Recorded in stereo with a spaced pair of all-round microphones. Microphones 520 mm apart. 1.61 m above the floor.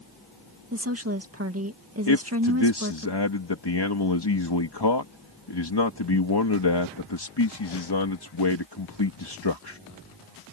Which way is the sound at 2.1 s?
50° left (ahead or behind).